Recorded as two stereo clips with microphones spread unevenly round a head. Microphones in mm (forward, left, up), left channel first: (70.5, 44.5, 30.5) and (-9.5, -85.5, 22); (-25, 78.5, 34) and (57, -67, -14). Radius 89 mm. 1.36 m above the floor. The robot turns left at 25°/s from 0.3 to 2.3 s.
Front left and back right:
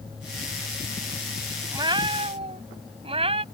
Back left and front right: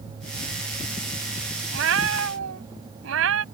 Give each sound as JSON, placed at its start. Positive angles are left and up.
{"t": 1.7, "sound": "a cat meowing", "azimuth_deg": -60}